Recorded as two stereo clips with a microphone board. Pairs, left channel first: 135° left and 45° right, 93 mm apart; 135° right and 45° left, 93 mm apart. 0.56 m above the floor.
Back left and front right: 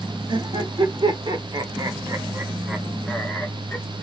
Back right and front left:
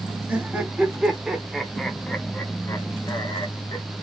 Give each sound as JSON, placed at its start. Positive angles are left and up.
{"t": 0.3, "sound": "laughter", "azimuth_deg": -30, "distance_m": 1.4}